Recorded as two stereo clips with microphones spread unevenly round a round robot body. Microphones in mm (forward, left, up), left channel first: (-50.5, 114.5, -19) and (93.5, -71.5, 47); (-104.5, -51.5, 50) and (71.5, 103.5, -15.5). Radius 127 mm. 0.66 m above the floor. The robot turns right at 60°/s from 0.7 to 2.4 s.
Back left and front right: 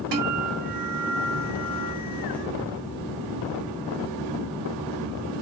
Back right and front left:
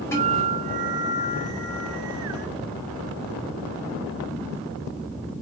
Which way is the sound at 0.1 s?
55° right.